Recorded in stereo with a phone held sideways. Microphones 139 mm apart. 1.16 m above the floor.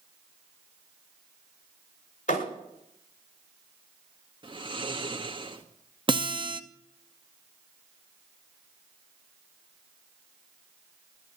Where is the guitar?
35° right (ahead or behind), 0.9 m.